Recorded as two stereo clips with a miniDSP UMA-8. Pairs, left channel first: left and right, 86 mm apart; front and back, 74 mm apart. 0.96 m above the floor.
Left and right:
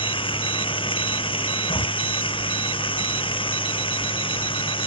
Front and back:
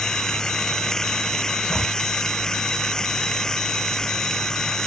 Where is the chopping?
80° left.